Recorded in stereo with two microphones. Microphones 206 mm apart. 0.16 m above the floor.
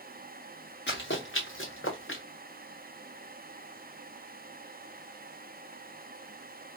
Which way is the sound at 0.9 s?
60° left (ahead or behind).